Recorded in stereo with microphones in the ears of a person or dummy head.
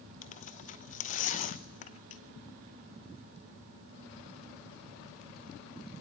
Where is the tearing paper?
35° left (ahead or behind), 0.7 m.